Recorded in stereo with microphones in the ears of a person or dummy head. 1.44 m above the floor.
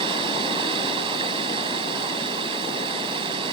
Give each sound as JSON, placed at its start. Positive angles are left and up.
{"t": 0.0, "sound": "running water", "side_deg": -25}